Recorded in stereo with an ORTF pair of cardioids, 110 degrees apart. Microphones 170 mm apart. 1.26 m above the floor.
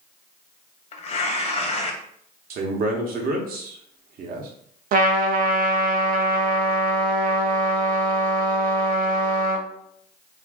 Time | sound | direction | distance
0.9 | tearing paper | 40° left | 0.7 m
2.5 | a man speaking | 60° right | 0.9 m
4.9 | a trumpet | 55° right | 0.5 m